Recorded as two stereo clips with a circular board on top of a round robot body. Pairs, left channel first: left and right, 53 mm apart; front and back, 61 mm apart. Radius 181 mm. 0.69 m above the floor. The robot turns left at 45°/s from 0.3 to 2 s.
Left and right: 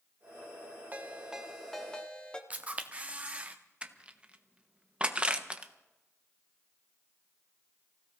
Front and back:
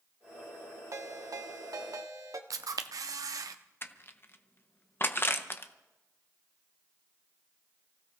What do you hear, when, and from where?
0.9 s a ringtone: 150° right, 1.4 m; by 2.4 s 160° left, 1.4 m
2.5 s a camera shutter: 155° right, 0.5 m
3.8 s crushing: 30° right, 1.3 m